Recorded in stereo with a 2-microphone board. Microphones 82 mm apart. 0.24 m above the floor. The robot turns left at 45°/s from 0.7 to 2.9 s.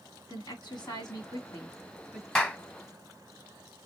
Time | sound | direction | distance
0.3 | a woman speaking | 80° left | 2.5 m
2.4 | a clap | 10° left (ahead or behind) | 1.1 m